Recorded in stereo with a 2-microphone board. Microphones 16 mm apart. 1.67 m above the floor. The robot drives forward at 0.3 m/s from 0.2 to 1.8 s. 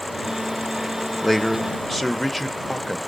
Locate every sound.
1.2 s a man speaking: centre (ahead or behind), 0.8 m